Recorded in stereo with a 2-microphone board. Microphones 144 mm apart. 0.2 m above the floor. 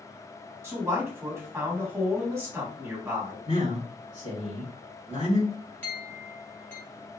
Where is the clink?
15° left (ahead or behind), 1.1 m.